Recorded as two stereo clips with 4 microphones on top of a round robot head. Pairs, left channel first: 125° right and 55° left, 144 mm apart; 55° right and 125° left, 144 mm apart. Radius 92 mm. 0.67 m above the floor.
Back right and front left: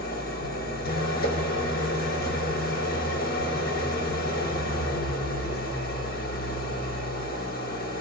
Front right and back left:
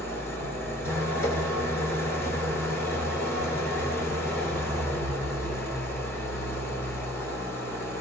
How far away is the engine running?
About 2.5 m.